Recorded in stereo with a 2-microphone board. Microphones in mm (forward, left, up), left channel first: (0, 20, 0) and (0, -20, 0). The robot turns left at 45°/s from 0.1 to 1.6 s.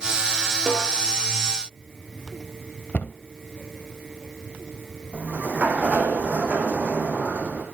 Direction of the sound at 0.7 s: 10° left (ahead or behind).